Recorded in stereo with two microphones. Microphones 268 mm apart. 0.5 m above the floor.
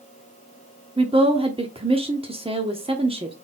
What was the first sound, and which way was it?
A woman speaking, 20° right (ahead or behind).